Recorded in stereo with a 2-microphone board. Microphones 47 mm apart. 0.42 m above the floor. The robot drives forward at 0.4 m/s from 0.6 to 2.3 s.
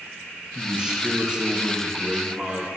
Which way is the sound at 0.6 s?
20° right (ahead or behind).